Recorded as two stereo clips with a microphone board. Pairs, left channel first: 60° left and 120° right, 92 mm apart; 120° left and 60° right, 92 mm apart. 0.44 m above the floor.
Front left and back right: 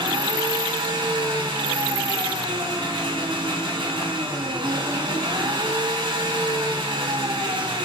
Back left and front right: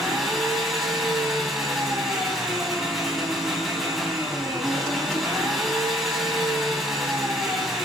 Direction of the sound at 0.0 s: 150° right.